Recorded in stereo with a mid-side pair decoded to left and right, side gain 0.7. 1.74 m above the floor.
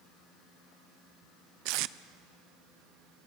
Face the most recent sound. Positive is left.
turn(degrees=-65)